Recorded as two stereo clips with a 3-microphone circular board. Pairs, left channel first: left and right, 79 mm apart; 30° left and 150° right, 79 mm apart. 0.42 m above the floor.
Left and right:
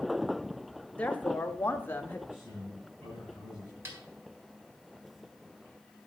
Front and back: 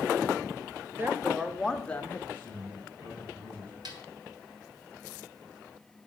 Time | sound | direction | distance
1.0 | a woman speaking | 160° left | 1.3 m
2.3 | a man speaking | 85° right | 7 m
3.9 | a snare drum | 140° right | 3 m